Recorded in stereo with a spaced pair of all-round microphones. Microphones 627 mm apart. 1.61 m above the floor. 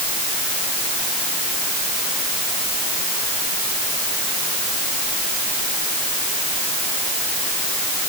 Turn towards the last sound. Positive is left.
No sound to turn to.